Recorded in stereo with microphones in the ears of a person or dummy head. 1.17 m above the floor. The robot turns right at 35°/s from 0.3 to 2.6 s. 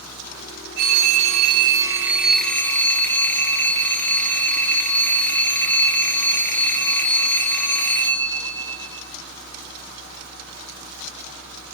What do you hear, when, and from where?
0.8 s a phone ringing: 55° right, 1.1 m; by 9.1 s 10° left, 1.1 m